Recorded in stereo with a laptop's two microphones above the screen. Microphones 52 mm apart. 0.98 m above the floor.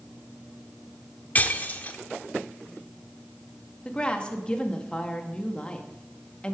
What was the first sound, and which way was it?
Breaking glass, 35° left (ahead or behind).